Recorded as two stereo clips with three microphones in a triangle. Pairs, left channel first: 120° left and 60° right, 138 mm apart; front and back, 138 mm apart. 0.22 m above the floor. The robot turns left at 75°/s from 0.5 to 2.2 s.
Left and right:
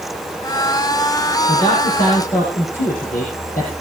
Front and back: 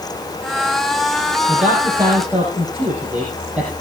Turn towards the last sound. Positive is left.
turn(degrees=100)